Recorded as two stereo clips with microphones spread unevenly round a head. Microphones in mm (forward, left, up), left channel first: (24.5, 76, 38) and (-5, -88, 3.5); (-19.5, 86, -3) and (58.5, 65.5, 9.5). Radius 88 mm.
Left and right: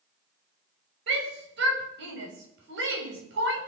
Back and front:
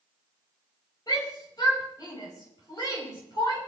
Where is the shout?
125° right, 5.5 m.